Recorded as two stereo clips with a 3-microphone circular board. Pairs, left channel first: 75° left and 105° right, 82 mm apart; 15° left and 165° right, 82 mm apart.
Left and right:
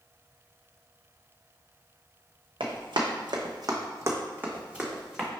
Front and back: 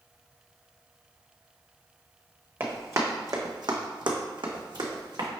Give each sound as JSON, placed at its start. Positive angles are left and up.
{"t": 2.6, "sound": "running footsteps", "azimuth_deg": -105, "distance_m": 1.0}